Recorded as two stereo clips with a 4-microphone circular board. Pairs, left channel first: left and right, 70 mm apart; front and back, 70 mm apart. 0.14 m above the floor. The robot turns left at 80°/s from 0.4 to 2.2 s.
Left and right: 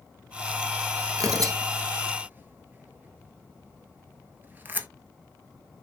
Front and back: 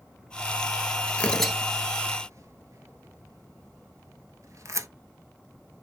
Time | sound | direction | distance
1.2 | tearing paper | 65° right | 0.6 m